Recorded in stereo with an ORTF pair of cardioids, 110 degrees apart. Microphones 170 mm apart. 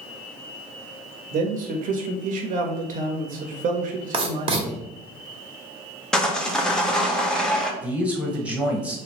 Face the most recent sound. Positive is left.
turn(degrees=-10)